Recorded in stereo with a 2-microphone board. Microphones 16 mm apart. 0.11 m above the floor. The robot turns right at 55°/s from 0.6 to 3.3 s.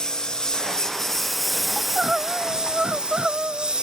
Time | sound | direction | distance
0.0 | a lawn mower | 120° left | ?
1.8 | crying | 155° right | ?